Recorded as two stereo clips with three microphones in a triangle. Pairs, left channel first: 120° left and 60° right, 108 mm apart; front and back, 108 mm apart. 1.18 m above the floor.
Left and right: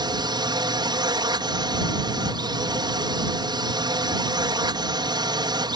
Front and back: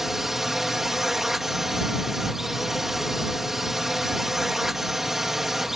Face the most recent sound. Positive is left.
turn(degrees=-95)